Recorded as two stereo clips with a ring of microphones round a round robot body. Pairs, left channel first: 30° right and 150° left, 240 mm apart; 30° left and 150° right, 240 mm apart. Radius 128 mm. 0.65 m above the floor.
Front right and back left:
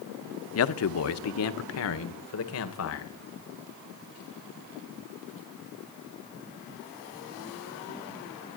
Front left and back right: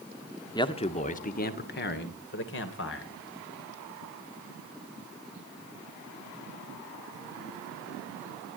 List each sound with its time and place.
0.6 s a man speaking: 40° right, 1.2 m; by 3.1 s 5° right, 2.5 m